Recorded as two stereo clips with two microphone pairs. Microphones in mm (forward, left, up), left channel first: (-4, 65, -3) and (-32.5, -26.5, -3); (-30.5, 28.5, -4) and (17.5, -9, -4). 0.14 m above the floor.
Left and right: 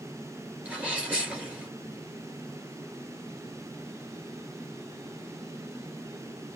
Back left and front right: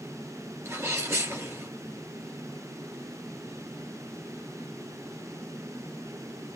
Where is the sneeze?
35° right, 2.5 m.